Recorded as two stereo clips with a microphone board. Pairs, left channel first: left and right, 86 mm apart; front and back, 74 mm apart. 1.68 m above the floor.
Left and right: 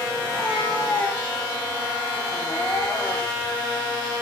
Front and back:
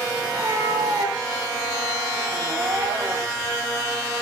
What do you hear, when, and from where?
0.2 s a cat meowing: 150° left, 4 m